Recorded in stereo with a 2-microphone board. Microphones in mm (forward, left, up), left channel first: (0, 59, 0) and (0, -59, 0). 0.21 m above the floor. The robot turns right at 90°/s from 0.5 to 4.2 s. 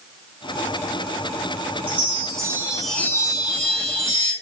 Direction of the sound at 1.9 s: 85° right.